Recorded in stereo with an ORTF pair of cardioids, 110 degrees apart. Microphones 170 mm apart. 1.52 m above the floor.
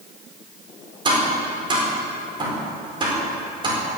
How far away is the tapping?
About 4.5 m.